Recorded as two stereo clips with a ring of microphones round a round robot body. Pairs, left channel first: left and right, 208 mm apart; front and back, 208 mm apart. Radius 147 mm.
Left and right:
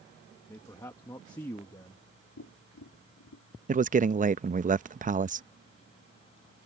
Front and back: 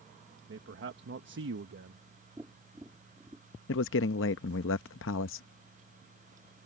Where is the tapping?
105° left.